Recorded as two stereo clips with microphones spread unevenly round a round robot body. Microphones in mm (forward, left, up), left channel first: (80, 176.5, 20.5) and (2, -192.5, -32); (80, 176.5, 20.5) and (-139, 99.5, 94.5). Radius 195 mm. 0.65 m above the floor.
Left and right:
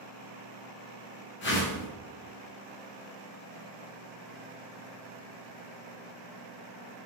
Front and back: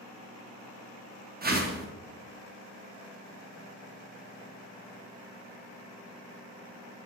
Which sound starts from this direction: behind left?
A whoosh, at 1.4 s.